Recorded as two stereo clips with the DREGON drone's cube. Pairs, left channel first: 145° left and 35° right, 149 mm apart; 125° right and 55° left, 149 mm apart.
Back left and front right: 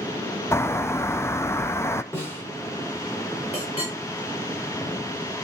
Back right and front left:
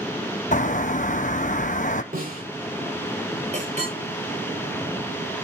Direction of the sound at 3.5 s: 95° left.